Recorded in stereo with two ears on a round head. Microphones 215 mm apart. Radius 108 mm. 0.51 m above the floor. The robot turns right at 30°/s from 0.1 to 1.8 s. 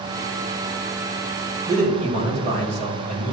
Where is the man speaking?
30° right (ahead or behind), 2.5 m.